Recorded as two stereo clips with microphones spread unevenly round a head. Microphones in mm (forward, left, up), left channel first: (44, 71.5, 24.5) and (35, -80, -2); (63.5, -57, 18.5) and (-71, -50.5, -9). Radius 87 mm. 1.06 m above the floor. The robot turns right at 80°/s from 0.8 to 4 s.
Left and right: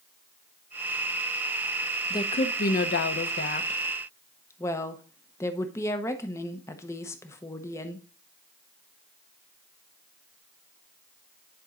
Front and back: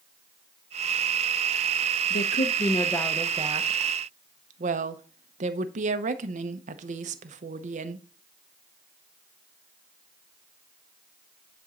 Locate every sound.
2.1 s a woman speaking: 15° left, 0.7 m; by 8.1 s 165° left, 0.7 m